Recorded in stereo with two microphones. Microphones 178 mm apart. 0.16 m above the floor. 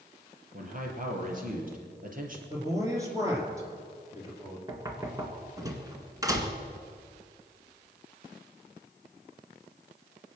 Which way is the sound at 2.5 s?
15° right (ahead or behind).